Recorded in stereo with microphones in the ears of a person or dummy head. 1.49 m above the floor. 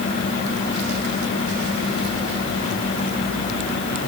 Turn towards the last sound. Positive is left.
No sound to turn to.